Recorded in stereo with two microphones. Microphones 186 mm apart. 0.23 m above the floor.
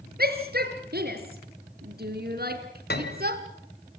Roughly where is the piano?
Left.